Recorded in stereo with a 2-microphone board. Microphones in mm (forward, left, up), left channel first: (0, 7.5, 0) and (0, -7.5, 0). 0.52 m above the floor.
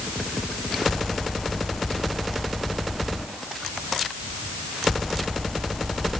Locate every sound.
Only background noise.